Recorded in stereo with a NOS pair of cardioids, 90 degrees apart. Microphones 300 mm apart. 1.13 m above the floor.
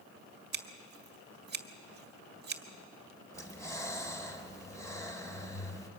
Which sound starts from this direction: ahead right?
Scissors, at 0.5 s.